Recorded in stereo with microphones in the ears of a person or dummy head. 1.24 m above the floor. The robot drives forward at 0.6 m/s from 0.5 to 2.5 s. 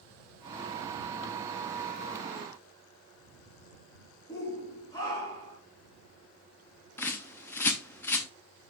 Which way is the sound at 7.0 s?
15° left (ahead or behind).